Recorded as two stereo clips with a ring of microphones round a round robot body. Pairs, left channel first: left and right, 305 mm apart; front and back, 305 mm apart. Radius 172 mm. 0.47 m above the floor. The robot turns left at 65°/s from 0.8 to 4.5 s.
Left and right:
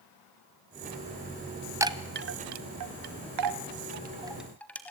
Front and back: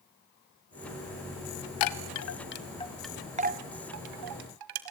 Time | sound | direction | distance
1.8 | a chime | 10° right | 1.6 m